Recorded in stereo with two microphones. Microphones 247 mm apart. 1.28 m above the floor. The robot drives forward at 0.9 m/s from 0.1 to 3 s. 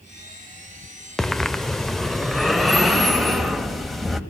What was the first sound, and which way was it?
Breathing, centre (ahead or behind).